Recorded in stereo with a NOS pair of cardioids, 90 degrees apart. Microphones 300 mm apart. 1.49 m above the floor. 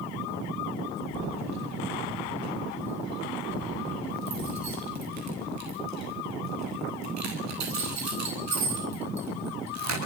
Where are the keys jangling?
65° right, 9 m.